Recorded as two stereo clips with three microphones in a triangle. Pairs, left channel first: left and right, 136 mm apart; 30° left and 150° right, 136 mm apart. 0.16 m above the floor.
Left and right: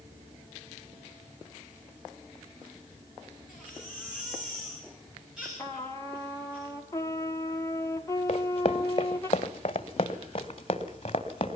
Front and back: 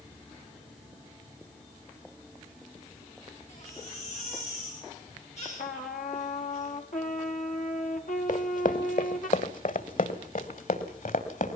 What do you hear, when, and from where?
3.5 s a baby crying: 5° right, 8 m
5.6 s a trumpet: 20° left, 1.4 m
8.3 s running footsteps: 50° left, 1.5 m; by 11.6 s 45° left, 3 m